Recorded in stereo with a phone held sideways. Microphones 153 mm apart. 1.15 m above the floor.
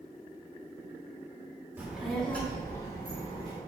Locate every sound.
1.8 s a child speaking: 10° right (ahead or behind), 0.9 m; by 3.6 s 30° left (ahead or behind), 2.0 m